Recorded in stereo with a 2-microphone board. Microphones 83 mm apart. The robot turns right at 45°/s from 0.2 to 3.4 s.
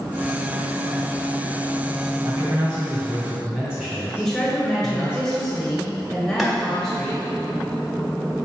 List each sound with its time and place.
2.2 s a man speaking: 60° right, 1.9 m; by 5.2 s 10° right, 1.9 m
4.2 s a woman speaking: 5° left (ahead or behind), 1.8 m
6.4 s boiling: centre (ahead or behind), 1.5 m